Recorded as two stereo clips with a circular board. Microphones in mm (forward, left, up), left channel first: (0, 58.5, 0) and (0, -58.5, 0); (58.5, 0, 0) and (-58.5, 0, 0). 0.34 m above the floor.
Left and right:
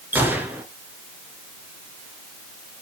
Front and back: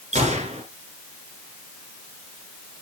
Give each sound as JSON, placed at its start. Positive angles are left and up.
{"t": 0.1, "sound": "a gunshot", "azimuth_deg": -165, "distance_m": 2.0}